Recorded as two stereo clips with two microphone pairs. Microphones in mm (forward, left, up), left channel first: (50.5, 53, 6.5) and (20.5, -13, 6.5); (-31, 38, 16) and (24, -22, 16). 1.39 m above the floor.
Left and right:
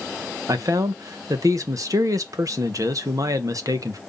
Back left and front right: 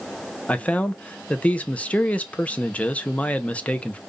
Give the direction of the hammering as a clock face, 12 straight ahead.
No hammering in this recording.